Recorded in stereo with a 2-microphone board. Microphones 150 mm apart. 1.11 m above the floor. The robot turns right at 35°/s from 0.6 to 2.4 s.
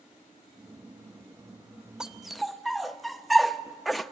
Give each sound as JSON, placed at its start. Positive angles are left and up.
{"t": 2.0, "sound": "a dog barking", "side_deg": -5, "distance_m": 0.6}